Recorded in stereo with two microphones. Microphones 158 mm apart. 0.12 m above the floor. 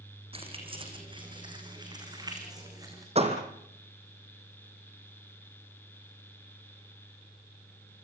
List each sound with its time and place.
0.3 s keys jangling: 40° right (ahead or behind), 4.5 m; by 3.0 s 20° right (ahead or behind), 7 m
3.1 s a door slam: 40° right (ahead or behind), 3.5 m